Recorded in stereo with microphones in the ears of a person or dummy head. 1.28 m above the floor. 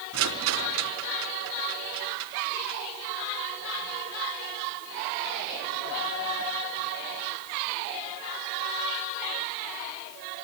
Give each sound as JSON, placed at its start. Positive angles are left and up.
{"t": 0.1, "sound": "a rattle", "side_deg": -70, "distance_m": 3.5}